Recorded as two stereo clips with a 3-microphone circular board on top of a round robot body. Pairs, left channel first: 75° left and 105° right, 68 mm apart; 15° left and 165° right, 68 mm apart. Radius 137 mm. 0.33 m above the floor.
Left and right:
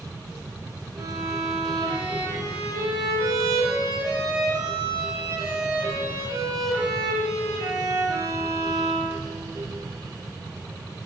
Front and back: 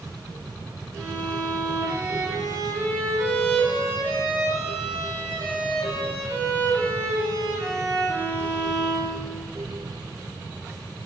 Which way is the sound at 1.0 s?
105° right.